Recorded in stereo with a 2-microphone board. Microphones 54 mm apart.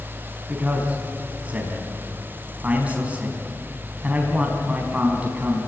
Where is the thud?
I don't hear a thud.